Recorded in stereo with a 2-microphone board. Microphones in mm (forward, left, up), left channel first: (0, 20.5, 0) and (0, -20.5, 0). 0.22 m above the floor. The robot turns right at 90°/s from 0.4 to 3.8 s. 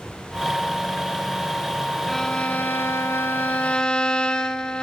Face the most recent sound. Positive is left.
turn(degrees=160)